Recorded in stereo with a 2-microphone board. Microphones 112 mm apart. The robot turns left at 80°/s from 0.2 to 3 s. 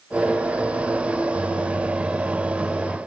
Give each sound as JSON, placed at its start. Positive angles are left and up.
{"t": 1.3, "sound": "a microwave", "azimuth_deg": -75, "distance_m": 1.5}